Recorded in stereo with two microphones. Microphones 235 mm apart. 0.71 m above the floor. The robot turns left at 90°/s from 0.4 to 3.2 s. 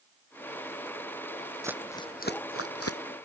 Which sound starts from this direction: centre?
Crumpling, at 1.6 s.